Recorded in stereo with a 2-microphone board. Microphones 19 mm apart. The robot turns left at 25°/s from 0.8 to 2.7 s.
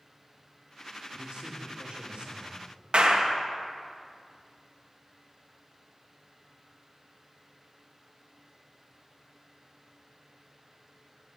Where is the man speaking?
85° right, 2.5 m; by 2.6 s 120° right, 2.5 m.